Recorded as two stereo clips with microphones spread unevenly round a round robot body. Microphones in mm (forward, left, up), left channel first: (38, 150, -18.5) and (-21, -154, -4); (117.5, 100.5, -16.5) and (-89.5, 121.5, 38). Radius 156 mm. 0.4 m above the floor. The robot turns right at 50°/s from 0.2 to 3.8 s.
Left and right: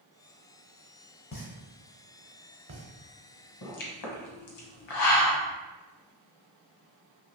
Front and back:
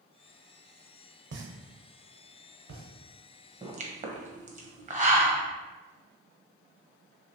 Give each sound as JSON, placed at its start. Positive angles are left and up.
{"t": 1.3, "sound": "a pop", "azimuth_deg": 135, "distance_m": 0.6}
{"t": 3.6, "sound": "a pop", "azimuth_deg": 105, "distance_m": 0.8}